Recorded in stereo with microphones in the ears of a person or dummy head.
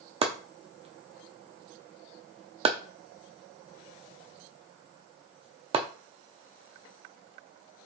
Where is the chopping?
35° right (ahead or behind), 0.5 m.